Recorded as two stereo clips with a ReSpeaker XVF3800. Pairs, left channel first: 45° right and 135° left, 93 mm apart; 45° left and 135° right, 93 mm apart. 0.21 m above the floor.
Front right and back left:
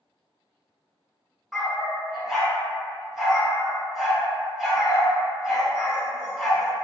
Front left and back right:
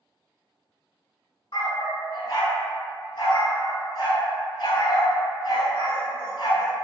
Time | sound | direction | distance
1.5 | a dog barking | 45° left | 0.7 m